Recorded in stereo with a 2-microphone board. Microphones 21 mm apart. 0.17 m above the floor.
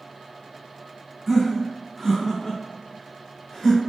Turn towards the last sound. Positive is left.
turn(degrees=5)  # may be behind; listen again after turning